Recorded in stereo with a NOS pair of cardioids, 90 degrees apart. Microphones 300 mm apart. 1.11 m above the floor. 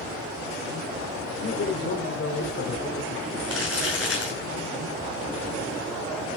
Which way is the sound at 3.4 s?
50° left.